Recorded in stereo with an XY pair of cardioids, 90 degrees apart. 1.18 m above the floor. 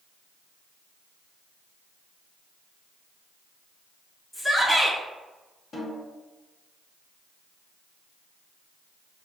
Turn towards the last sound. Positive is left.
turn(degrees=65)